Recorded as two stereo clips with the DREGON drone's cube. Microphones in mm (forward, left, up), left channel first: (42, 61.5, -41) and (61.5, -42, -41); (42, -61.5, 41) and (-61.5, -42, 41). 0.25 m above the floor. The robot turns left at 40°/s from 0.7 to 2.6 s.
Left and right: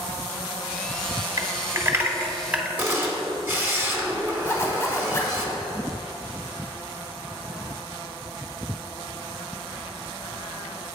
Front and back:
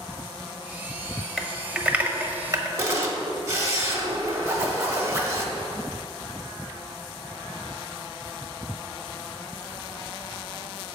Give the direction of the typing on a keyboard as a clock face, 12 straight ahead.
3 o'clock.